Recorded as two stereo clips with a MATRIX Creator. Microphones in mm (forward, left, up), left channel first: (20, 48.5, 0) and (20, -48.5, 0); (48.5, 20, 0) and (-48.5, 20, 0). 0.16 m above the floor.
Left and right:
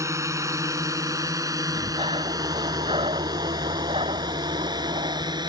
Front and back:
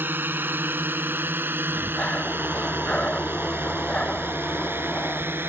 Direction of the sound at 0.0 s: 125° right.